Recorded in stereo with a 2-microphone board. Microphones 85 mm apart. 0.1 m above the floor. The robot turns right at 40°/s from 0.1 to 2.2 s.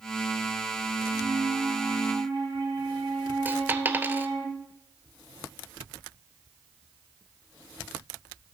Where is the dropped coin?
20° right (ahead or behind), 0.7 m.